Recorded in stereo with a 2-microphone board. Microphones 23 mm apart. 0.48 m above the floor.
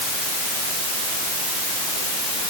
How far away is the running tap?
I don't hear a running tap.